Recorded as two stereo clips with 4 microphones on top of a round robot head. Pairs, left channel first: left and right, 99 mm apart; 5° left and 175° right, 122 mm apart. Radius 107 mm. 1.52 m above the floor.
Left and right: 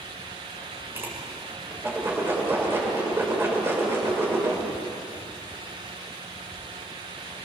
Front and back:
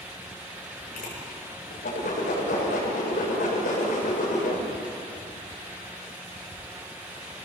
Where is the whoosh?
25° right, 7.5 m.